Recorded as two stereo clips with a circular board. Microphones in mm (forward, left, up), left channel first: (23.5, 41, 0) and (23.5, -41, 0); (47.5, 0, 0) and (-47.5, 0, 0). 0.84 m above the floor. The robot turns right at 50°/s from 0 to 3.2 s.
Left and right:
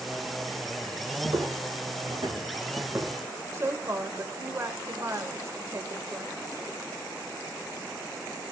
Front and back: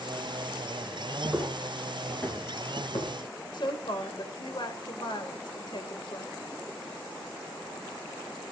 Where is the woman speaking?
35° right, 3 m.